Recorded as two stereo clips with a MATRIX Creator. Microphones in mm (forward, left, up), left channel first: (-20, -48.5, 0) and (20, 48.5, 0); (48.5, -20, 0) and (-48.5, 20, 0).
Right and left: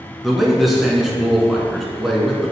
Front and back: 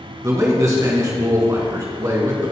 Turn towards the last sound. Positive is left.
turn(degrees=155)